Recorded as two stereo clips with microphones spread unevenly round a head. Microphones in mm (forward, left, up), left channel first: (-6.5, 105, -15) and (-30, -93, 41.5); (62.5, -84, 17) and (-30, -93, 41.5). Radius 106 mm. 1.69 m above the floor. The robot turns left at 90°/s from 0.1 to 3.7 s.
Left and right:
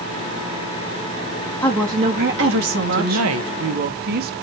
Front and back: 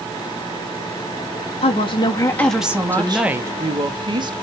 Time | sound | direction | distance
1.6 | a woman speaking | straight ahead | 2.5 m
2.9 | a woman speaking | 65° right | 1.6 m